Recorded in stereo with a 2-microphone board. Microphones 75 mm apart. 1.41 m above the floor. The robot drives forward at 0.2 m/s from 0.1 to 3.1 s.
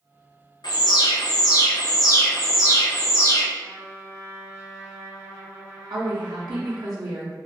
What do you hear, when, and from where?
0.6 s an alarm: 65° left (ahead or behind), 0.7 m; by 3.5 s 40° left (ahead or behind), 0.9 m
3.6 s a trumpet: 35° right (ahead or behind), 1.7 m
5.9 s a woman speaking: 60° right (ahead or behind), 0.6 m